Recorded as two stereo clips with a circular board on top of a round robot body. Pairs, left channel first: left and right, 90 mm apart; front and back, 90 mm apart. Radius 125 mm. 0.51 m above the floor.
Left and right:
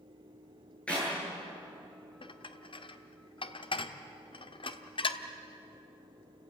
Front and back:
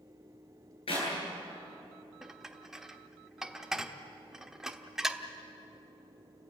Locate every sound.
0.9 s a clap: 10° left, 10 m
2.2 s dishes clattering: 95° left, 1.2 m